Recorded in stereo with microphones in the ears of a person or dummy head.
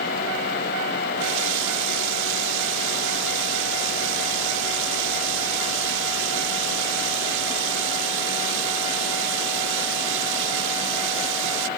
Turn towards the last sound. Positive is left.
turn(degrees=-70)  # may be behind; listen again after turning